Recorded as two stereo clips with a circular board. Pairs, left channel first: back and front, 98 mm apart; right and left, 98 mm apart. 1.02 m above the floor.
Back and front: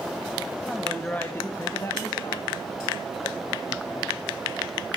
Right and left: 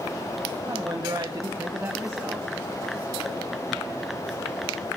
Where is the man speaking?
95° left, 1.0 m; by 4.2 s 175° left, 1.9 m.